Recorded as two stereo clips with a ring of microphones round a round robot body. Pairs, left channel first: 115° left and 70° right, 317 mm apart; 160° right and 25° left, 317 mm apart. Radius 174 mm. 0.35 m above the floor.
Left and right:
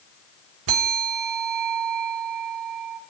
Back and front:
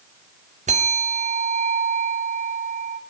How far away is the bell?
About 1.5 m.